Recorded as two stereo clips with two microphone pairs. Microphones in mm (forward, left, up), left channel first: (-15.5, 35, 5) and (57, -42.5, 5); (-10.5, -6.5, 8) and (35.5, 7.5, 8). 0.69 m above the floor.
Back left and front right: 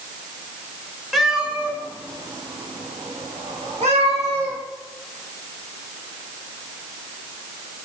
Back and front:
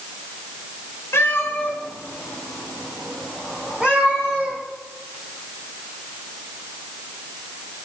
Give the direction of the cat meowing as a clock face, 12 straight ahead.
5 o'clock.